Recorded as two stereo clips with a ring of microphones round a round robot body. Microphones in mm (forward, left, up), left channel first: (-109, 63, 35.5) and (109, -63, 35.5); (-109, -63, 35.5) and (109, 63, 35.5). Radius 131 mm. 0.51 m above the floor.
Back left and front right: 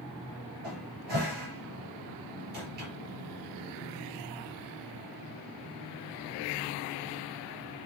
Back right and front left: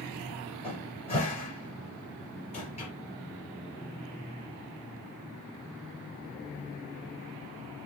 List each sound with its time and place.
0.6 s a cupboard door: 85° right, 4 m